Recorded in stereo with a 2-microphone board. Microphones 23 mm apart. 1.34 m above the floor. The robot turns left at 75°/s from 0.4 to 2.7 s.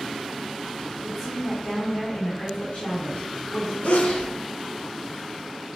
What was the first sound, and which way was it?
A woman speaking, 170° right.